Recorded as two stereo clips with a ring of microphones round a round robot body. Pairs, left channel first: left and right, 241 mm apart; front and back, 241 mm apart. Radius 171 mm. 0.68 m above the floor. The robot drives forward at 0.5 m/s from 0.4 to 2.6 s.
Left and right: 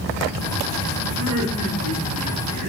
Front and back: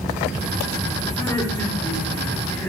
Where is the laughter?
75° right, 6 m; by 2.7 s 80° right, 6 m.